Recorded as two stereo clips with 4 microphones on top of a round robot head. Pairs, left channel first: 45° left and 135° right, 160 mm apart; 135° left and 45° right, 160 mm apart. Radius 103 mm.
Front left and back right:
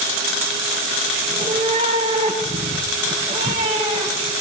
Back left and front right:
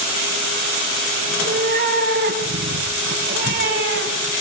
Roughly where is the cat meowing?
Right.